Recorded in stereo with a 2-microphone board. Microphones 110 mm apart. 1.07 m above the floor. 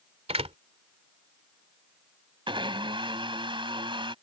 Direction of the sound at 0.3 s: 65° right (ahead or behind).